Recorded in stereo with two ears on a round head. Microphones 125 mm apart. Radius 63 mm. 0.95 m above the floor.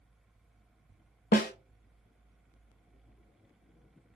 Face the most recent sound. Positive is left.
turn(degrees=65)  # may be behind; listen again after turning